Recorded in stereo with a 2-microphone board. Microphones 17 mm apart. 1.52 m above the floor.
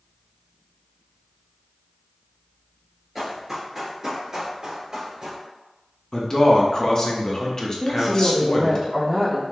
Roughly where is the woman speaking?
Right.